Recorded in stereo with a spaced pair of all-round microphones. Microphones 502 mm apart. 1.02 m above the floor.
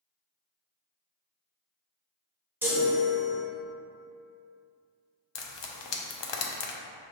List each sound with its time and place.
2.6 s a chime: 5° right (ahead or behind), 0.7 m
5.3 s frying: 60° left (ahead or behind), 0.5 m